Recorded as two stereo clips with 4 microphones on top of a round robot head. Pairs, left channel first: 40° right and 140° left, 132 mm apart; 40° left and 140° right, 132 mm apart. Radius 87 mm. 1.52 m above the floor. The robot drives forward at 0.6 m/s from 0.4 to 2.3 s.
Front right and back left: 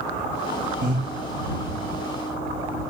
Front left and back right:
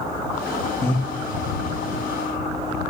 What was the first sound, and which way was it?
Breathing, 110° left.